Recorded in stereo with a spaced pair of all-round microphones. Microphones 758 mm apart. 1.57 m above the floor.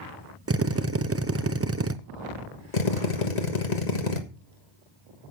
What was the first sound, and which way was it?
A drill, 20° right (ahead or behind).